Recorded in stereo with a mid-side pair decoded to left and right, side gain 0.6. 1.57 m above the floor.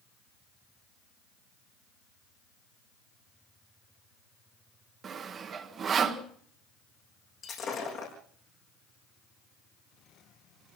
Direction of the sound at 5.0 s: 40° right.